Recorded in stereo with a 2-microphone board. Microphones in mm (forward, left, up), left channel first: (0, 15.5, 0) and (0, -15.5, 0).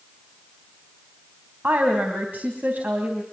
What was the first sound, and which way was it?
A woman speaking, 80° right.